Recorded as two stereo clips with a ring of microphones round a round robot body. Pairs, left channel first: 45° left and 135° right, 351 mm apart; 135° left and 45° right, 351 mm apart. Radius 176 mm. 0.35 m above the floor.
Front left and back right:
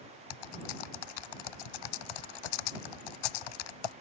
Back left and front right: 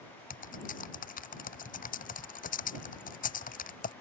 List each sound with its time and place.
0.3 s typing on a keyboard: 65° left